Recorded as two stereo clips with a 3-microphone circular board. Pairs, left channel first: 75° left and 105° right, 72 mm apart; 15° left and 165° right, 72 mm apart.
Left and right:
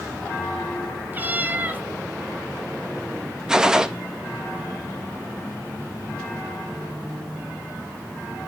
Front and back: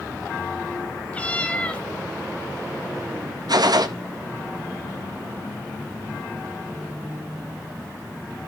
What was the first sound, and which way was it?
A cat meowing, 50° right.